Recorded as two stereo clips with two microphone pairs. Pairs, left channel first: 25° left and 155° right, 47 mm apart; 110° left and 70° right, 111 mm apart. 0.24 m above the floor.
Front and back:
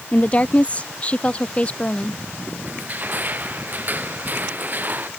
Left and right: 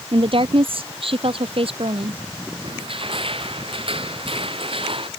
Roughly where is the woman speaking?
Ahead right.